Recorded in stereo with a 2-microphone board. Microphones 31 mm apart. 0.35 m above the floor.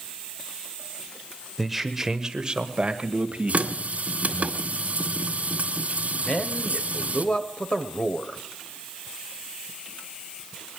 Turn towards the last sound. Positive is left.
turn(degrees=35)  # may be behind; listen again after turning